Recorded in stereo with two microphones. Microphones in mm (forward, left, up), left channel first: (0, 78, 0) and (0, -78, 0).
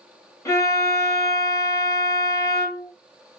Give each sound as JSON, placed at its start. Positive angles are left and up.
{"t": 0.5, "sound": "a violin", "side_deg": 20, "distance_m": 1.7}